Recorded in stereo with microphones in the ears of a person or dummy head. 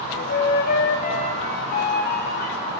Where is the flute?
55° left (ahead or behind), 2.5 m.